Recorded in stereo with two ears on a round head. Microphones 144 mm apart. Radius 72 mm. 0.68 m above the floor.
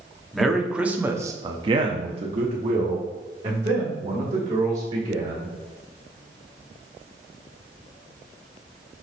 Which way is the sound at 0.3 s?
Centre (ahead or behind).